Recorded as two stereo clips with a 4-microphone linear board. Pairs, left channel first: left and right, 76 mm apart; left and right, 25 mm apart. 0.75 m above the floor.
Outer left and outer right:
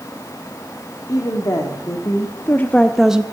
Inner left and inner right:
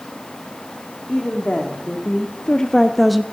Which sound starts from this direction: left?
A woman speaking, at 1.1 s.